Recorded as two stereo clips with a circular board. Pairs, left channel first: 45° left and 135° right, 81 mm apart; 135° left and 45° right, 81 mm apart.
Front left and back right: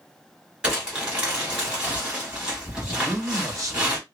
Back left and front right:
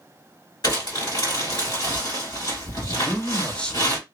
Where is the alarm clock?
No alarm clock in this recording.